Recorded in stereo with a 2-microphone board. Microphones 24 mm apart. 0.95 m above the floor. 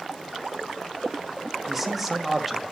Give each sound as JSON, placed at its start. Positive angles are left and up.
{"t": 1.7, "sound": "a man speaking", "side_deg": -5, "distance_m": 1.3}